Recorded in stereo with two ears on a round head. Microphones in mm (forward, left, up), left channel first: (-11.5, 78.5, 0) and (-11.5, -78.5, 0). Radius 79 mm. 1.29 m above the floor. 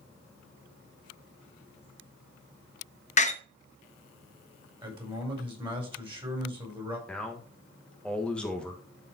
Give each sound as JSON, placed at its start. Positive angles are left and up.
{"t": 3.2, "sound": "a door slam", "side_deg": 40, "distance_m": 0.9}
{"t": 4.8, "sound": "a man speaking", "side_deg": -30, "distance_m": 5.0}
{"t": 7.1, "sound": "a man speaking", "side_deg": 5, "distance_m": 1.6}